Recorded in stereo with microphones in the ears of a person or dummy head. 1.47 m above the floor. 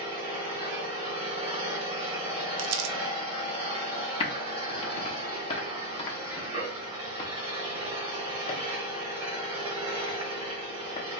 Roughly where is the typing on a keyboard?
Left.